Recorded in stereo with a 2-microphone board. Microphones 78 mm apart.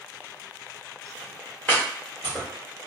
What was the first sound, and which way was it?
Chopping, 25° left (ahead or behind).